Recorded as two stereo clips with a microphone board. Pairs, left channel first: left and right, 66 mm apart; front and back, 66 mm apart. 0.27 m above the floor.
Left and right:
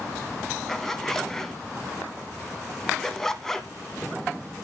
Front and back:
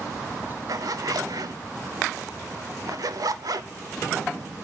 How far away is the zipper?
About 0.5 m.